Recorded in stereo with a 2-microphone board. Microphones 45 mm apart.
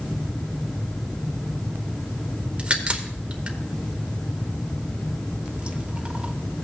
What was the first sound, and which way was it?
A crack, 25° right (ahead or behind).